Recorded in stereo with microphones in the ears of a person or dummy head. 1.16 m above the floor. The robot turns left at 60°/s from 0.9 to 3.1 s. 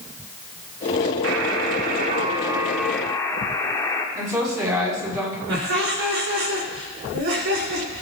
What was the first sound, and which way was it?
A buzzer, 85° right.